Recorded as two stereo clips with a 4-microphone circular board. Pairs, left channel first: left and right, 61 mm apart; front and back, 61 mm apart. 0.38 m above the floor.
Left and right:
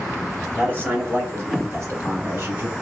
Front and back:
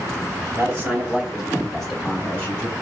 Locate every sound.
0.6 s a man speaking: 140° right, 2 m; by 2.7 s 55° right, 2.5 m